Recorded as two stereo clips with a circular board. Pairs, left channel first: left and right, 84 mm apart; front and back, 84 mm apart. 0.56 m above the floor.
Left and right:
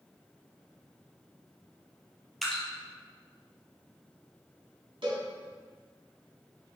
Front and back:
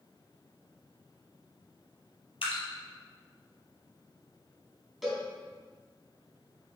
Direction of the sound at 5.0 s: 95° right.